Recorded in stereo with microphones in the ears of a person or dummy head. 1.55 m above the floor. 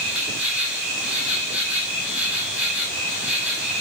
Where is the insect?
10° right (ahead or behind), 6.5 m.